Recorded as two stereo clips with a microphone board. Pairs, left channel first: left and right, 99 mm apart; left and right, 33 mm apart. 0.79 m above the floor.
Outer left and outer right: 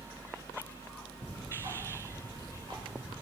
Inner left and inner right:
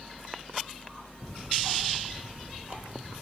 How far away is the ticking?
About 3.5 m.